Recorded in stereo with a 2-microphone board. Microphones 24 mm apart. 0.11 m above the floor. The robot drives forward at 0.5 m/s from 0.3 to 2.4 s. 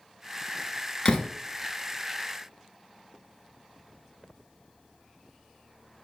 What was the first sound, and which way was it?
A door slam, 35° left (ahead or behind).